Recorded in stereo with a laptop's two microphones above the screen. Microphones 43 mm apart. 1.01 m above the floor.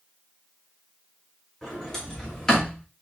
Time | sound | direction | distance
1.6 | a sliding door | 15° left (ahead or behind) | 2.5 m